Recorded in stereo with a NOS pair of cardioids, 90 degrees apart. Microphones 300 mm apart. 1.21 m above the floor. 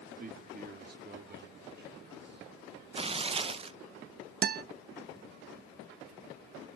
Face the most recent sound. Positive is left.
turn(degrees=-30)